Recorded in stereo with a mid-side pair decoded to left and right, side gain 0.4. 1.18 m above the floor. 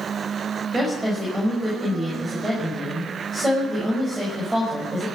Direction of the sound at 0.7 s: 25° right.